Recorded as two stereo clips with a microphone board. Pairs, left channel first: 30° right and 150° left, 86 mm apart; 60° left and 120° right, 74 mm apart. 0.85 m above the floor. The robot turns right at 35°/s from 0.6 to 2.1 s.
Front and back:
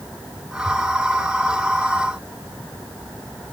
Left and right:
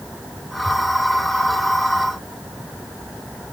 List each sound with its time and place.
Only background noise.